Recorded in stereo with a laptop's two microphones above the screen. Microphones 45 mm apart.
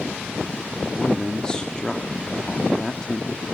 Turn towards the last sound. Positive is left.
turn(degrees=20)  # may be behind; listen again after turning